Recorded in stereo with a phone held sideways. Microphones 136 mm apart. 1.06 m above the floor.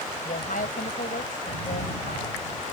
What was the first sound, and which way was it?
A woman speaking, 85° left.